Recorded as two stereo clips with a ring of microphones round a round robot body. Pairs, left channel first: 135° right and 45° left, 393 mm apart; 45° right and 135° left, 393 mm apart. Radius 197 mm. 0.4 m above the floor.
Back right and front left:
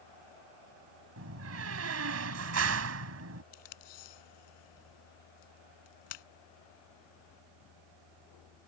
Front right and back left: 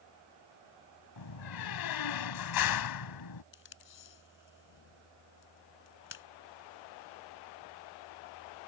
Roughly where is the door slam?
Ahead.